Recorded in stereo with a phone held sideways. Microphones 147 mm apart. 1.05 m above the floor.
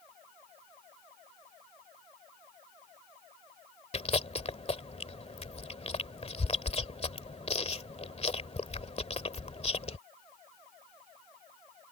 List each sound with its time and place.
3.9 s chewing: 45° left (ahead or behind)